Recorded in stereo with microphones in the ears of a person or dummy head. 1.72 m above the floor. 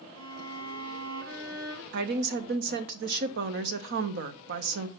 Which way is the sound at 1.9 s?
60° right (ahead or behind).